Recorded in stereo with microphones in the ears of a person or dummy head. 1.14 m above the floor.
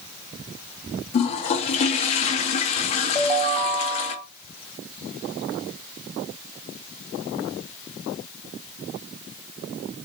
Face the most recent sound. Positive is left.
turn(degrees=45)  # may be behind; listen again after turning